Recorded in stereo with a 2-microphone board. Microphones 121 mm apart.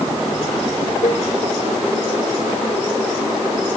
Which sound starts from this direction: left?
A cowbell, at 1.0 s.